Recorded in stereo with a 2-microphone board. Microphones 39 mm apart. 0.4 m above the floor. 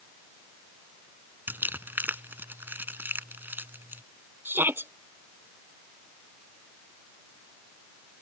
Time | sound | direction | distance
1.5 | crumpling | 60° right (ahead or behind) | ?
4.5 | a shout | 70° right (ahead or behind) | ?